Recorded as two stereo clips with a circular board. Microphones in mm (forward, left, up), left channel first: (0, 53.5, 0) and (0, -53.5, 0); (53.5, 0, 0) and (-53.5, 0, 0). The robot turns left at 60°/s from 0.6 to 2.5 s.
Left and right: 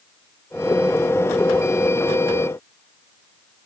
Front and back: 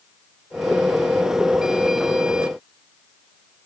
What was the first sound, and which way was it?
Only background noise.